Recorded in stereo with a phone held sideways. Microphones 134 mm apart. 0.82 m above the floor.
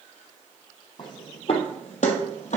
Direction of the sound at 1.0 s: 35° left (ahead or behind).